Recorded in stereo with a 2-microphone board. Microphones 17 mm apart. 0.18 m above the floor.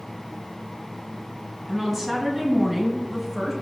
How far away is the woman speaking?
About 1.5 m.